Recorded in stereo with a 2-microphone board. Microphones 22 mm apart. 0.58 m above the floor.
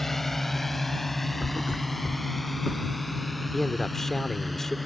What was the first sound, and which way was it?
A drone, 15° left (ahead or behind).